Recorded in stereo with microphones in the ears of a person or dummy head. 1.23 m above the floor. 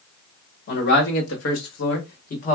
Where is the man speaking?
55° left (ahead or behind), 1.1 m; by 2.6 s 35° left (ahead or behind), 1.3 m.